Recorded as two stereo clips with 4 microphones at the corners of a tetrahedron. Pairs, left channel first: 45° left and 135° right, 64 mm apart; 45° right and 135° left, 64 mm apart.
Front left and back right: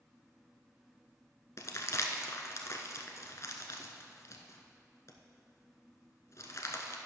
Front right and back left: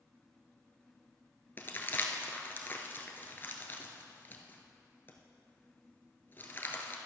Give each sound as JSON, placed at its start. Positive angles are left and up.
{"t": 1.6, "sound": "crumpling", "azimuth_deg": 10, "distance_m": 1.0}